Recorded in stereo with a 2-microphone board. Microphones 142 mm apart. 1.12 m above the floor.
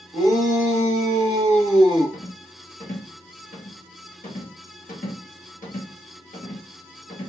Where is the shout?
60° left (ahead or behind), 1.7 m; by 2.2 s 35° left (ahead or behind), 0.8 m.